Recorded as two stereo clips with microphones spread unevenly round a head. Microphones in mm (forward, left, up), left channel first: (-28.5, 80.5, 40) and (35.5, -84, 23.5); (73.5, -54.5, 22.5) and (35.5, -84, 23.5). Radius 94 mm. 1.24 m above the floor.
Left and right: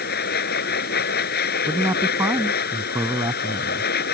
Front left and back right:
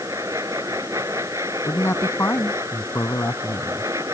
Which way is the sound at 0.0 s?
150° left.